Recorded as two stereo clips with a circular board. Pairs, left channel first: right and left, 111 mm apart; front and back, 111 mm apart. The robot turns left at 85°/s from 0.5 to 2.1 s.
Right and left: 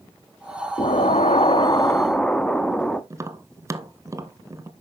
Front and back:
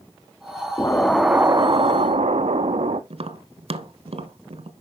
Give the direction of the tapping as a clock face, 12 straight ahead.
7 o'clock.